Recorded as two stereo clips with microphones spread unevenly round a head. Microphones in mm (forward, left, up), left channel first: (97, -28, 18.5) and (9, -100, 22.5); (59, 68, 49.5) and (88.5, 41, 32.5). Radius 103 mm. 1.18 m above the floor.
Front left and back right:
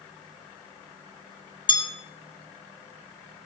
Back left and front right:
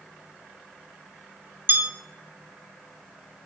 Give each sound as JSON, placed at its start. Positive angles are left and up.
{"t": 1.7, "sound": "a bell", "azimuth_deg": -10, "distance_m": 2.0}